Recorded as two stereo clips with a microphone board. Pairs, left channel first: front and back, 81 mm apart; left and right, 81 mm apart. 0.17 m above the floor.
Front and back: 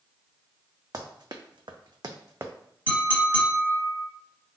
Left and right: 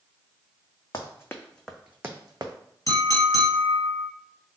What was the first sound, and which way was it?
Running footsteps, 140° left.